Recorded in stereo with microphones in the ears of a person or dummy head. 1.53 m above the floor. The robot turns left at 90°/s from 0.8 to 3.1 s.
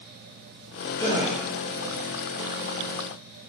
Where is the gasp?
160° left, 1.6 m; by 1.4 s 130° left, 1.6 m.